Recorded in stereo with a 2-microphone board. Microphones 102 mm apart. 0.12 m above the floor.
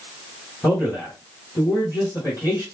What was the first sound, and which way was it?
A man speaking, 30° left (ahead or behind).